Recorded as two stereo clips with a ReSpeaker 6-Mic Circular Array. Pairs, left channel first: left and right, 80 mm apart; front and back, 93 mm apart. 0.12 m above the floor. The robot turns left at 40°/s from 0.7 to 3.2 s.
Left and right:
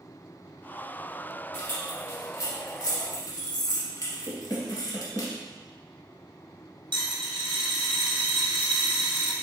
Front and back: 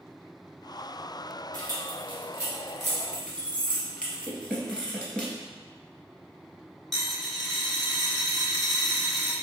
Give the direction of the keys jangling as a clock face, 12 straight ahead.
7 o'clock.